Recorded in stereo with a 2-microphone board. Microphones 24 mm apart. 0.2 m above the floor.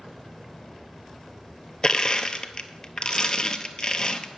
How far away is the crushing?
About 0.7 m.